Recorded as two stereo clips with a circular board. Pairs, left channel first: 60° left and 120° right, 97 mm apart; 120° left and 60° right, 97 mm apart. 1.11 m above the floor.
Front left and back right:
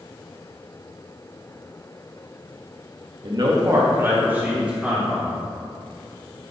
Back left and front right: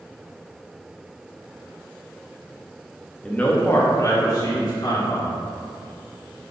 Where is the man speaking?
160° right, 1.3 m; by 5.3 s 155° left, 2.5 m.